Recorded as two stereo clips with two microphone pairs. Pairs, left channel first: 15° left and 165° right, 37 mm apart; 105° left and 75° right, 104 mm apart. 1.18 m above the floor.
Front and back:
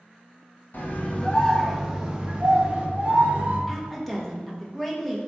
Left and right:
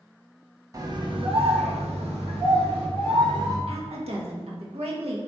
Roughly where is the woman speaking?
Right.